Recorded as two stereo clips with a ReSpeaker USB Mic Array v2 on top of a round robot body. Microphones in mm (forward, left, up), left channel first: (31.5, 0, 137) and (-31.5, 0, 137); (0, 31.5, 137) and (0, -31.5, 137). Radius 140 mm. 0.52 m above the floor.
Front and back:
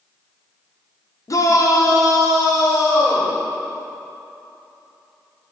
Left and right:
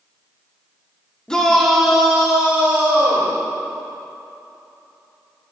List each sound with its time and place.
1.3 s a shout: 15° left, 1.7 m; by 3.3 s 25° right, 3 m